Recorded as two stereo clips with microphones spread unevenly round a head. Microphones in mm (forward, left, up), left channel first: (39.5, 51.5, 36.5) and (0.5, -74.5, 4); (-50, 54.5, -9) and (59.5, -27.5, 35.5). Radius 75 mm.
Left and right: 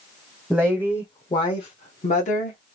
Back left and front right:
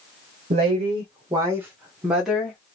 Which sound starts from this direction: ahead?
A woman speaking, at 0.5 s.